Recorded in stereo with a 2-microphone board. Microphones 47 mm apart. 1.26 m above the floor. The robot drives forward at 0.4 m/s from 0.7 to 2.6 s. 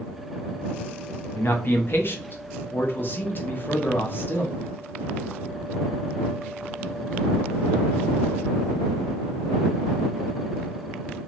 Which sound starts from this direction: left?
A man speaking, at 1.4 s.